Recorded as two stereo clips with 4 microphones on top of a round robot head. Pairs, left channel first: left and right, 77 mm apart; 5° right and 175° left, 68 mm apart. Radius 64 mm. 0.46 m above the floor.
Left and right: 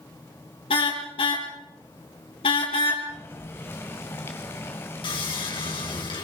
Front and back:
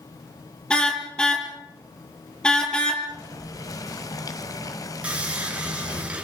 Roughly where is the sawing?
Left.